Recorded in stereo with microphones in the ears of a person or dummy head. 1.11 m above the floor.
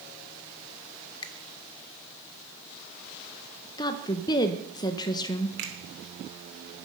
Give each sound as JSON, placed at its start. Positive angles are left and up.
{"t": 1.2, "sound": "a finger snap", "side_deg": 25, "distance_m": 1.0}
{"t": 3.8, "sound": "a woman speaking", "side_deg": 20, "distance_m": 0.8}
{"t": 5.6, "sound": "a finger snap", "side_deg": -70, "distance_m": 3.0}